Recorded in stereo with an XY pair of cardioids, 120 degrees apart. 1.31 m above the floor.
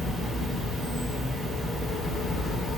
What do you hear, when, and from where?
0.0 s an insect: 10° right, 1.9 m